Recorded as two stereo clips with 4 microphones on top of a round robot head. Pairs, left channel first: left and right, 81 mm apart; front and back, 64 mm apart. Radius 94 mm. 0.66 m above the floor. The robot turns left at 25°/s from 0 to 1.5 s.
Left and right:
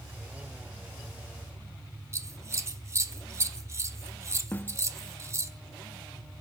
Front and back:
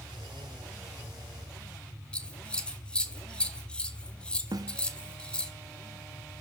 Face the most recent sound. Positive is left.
turn(degrees=160)